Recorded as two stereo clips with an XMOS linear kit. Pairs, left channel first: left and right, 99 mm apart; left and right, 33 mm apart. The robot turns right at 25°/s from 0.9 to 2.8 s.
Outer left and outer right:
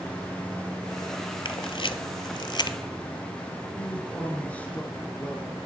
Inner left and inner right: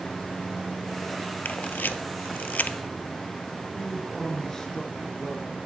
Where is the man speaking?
15° left (ahead or behind), 1.2 m.